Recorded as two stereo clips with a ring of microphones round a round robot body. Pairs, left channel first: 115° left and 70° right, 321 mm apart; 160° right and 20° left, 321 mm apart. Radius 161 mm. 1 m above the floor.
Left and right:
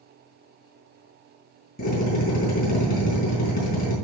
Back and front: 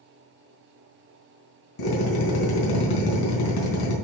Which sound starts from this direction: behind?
A drill, at 1.8 s.